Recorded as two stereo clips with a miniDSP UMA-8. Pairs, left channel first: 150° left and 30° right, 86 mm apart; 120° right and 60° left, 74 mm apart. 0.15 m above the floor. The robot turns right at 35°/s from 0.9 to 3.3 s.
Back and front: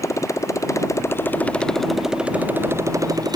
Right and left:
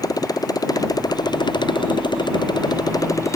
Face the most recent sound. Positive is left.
turn(degrees=-70)